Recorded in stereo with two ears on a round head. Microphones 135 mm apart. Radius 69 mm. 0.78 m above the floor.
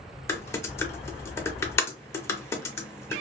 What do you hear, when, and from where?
0.3 s typing on a keyboard: 20° left (ahead or behind), 0.6 m